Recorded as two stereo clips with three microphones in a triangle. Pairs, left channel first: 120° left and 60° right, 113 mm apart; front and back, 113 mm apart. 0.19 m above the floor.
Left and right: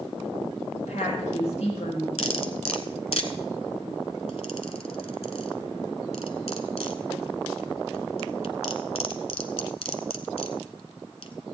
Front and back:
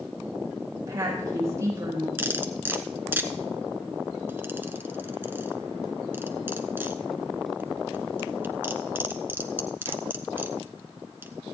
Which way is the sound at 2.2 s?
110° left.